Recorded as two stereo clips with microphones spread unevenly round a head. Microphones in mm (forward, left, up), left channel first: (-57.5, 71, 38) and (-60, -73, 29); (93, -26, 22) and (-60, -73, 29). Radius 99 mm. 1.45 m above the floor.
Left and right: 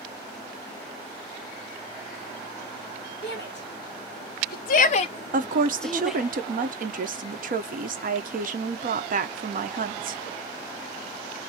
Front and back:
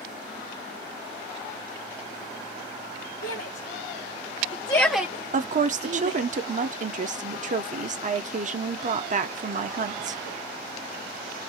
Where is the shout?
50° left, 1.2 m; by 6.2 s straight behind, 0.8 m.